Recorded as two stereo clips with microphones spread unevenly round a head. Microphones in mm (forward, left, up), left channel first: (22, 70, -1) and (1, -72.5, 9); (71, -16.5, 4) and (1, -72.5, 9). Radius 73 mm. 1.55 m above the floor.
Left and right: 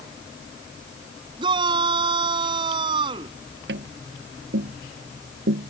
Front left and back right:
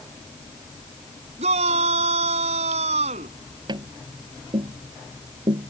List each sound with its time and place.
1.4 s a shout: 160° right
3.7 s tapping: 105° right